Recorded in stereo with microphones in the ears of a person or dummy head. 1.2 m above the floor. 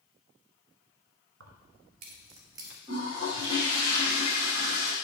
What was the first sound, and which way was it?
Keys jangling, 65° right (ahead or behind).